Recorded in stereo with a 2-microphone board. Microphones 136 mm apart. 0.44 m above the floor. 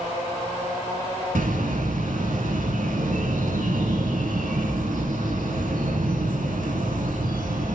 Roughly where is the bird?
Right.